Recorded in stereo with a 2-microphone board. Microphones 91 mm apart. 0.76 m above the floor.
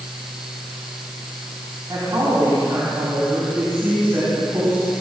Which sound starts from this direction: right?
A woman speaking, at 1.9 s.